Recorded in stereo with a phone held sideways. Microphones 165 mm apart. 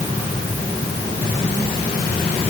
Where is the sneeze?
No sneeze in this recording.